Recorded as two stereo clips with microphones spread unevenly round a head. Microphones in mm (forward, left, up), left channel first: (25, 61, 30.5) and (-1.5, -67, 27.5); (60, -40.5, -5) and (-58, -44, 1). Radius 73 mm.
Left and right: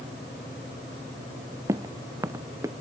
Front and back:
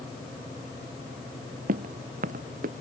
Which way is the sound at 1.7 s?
175° right.